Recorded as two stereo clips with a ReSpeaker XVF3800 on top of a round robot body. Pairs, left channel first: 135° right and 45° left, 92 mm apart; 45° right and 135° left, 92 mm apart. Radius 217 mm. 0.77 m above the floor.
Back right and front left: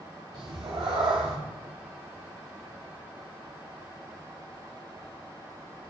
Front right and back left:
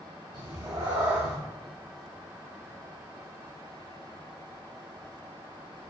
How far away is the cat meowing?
About 0.6 m.